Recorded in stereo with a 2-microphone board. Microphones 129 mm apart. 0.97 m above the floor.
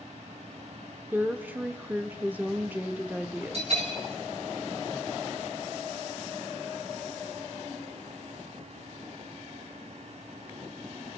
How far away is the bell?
About 5.5 m.